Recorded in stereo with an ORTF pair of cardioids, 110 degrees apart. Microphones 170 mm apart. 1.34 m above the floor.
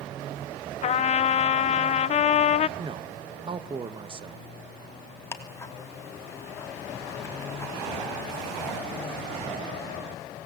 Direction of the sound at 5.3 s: 15° left.